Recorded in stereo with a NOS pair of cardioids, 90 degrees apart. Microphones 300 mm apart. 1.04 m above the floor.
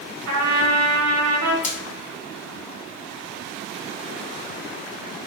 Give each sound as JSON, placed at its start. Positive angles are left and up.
{"t": 0.3, "sound": "a trumpet", "azimuth_deg": -65, "distance_m": 1.3}
{"t": 1.6, "sound": "frying", "azimuth_deg": 25, "distance_m": 0.9}